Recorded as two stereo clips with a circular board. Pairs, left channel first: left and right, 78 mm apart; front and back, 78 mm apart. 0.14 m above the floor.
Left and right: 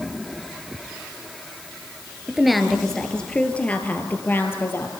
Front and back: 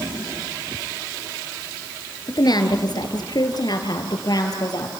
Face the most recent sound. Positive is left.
turn(degrees=35)